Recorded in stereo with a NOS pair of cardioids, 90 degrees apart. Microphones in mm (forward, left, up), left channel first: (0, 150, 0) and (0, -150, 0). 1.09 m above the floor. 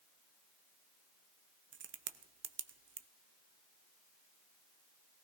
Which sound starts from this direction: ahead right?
A crack, at 1.7 s.